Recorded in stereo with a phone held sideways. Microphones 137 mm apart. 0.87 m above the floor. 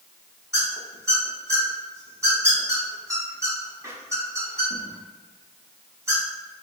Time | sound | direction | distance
0.5 | a squeak | 20° right (ahead or behind) | 0.9 m